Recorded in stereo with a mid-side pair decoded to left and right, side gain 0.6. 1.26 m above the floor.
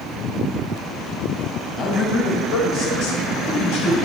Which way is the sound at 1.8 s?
40° left.